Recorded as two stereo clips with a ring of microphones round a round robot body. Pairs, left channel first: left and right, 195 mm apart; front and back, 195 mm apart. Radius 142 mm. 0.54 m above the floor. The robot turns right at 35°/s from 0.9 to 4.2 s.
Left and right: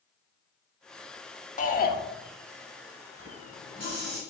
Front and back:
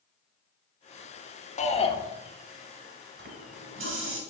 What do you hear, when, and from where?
1.6 s a shout: 45° left, 1.2 m; by 2.0 s 60° left, 1.2 m
3.2 s a running tap: 150° left, 2.0 m; by 4.2 s 175° right, 2.0 m